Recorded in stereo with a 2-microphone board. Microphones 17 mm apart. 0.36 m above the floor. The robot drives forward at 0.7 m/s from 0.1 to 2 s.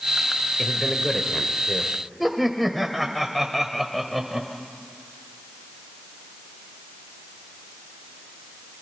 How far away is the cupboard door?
I don't hear a cupboard door.